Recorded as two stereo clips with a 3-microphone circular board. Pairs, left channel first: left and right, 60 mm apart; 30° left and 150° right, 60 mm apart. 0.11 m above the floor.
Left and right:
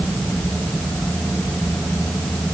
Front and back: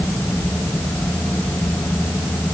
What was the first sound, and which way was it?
Only background noise.